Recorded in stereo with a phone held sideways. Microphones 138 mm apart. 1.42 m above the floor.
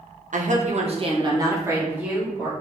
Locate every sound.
0.3 s a woman speaking: 65° right (ahead or behind), 0.7 m; by 2.5 s 5° right (ahead or behind), 1.4 m